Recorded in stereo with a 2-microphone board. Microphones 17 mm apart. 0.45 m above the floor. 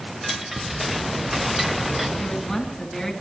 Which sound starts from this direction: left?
A woman speaking, at 2.2 s.